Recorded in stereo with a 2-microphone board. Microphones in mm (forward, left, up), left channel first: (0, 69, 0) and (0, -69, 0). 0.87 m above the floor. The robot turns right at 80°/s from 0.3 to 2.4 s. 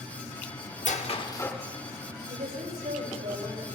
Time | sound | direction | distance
0.8 | a squeak | 110° left | 0.8 m
2.3 | a woman speaking | 85° right | 3.5 m